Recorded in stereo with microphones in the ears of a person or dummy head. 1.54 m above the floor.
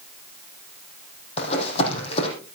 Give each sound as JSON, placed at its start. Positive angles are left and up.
{"t": 1.4, "sound": "running footsteps", "side_deg": 40, "distance_m": 4.5}